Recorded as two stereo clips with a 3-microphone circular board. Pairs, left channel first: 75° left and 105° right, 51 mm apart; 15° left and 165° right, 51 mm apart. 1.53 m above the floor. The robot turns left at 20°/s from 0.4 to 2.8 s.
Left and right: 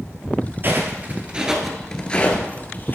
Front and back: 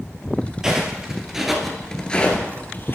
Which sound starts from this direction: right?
Footsteps, at 0.6 s.